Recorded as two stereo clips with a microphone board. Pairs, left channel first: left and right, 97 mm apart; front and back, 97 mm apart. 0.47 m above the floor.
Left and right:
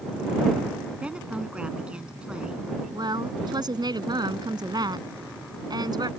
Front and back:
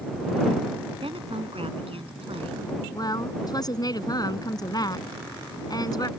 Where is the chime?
No chime in this recording.